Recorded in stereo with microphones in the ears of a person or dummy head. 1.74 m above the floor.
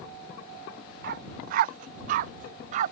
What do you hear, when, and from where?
1.0 s a dog barking: 55° right (ahead or behind); by 2.9 s 50° right (ahead or behind)